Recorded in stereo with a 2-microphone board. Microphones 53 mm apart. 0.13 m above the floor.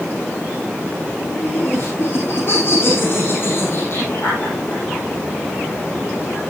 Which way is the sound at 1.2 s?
45° left (ahead or behind).